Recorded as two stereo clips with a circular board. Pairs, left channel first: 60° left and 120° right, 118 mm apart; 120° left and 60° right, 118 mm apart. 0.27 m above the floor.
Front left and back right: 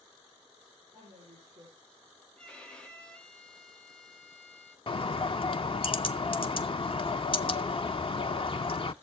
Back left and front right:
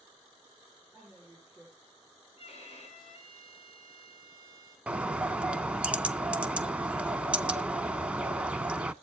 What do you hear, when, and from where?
0.9 s a woman speaking: 145° right, 9 m
2.4 s a violin: 145° left, 4 m
4.9 s a bird: 20° left, 0.5 m